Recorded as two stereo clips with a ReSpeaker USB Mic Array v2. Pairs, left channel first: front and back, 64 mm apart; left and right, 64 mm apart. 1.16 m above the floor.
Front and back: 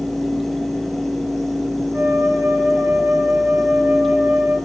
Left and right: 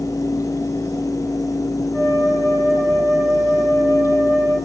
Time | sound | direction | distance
1.9 | a flute | 140° left | 4.5 m